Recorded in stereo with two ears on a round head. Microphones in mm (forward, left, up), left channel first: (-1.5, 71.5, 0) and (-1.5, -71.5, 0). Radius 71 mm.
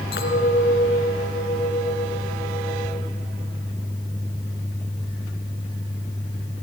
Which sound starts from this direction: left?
A clink, at 0.1 s.